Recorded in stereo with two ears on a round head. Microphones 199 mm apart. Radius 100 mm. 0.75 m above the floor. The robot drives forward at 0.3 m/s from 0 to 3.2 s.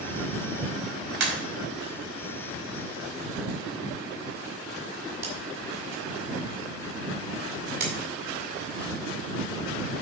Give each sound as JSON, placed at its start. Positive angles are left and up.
{"t": 1.2, "sound": "a pop", "side_deg": -60, "distance_m": 4.5}